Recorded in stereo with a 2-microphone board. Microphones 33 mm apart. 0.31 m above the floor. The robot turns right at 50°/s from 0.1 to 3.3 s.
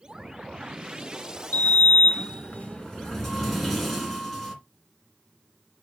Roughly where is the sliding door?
Left.